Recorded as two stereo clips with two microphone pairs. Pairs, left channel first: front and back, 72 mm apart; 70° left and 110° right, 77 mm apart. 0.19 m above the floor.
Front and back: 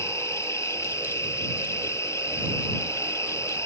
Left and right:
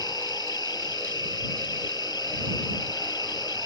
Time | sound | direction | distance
0.0 | an insect | 50° left | ?